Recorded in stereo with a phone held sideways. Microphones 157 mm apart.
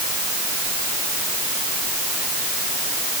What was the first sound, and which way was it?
Only background noise.